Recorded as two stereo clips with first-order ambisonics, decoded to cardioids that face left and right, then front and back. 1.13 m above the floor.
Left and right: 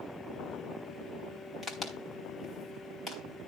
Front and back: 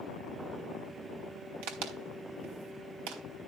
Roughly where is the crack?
Behind.